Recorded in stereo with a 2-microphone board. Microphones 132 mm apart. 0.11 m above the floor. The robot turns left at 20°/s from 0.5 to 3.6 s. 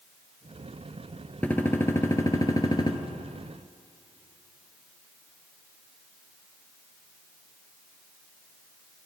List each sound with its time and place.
1.4 s a gunshot: 165° left, 0.9 m; by 3.0 s 135° left, 0.9 m